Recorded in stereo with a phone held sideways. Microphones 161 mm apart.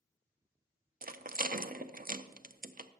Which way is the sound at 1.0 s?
60° right (ahead or behind).